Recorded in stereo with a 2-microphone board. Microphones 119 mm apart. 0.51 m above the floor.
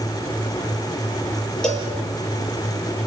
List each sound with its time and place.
1.6 s a cowbell: 5° left (ahead or behind), 6 m